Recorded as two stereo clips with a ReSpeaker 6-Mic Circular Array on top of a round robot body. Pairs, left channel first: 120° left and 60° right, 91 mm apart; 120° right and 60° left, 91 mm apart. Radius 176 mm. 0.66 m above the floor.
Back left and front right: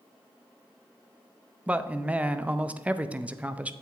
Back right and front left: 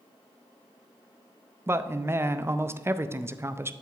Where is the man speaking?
10° left, 0.7 m.